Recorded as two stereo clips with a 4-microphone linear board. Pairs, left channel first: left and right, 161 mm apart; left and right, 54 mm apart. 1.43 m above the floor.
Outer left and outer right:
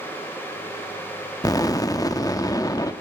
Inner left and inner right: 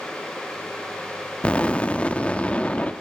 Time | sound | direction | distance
1.4 | an explosion | 20° left (ahead or behind) | 1.0 m